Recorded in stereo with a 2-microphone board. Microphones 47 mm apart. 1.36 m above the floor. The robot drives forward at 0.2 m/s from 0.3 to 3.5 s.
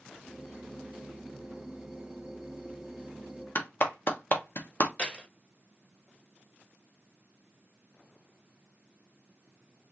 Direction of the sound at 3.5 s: 45° left (ahead or behind).